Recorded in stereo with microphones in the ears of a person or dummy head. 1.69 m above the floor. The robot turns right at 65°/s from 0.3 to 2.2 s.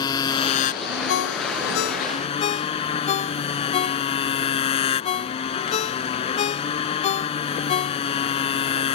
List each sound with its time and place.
0.0 s a motorcycle: 30° left; by 8.9 s 150° left
1.1 s a ringtone: 70° left (ahead or behind); by 8.3 s 35° left (ahead or behind)